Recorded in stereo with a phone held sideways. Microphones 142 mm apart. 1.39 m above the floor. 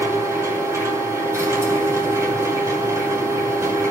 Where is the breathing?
No breathing in this recording.